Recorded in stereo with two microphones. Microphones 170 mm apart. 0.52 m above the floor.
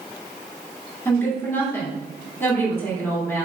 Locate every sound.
1.1 s a woman speaking: 15° left (ahead or behind), 1.6 m